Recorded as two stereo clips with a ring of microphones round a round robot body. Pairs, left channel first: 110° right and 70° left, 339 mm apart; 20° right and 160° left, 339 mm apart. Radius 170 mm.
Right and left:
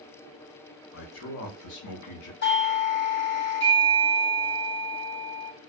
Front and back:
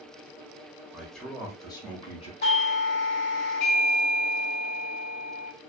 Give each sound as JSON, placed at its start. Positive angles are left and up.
{"t": 0.9, "sound": "a man speaking", "azimuth_deg": -120, "distance_m": 0.8}
{"t": 2.4, "sound": "a doorbell", "azimuth_deg": -70, "distance_m": 1.4}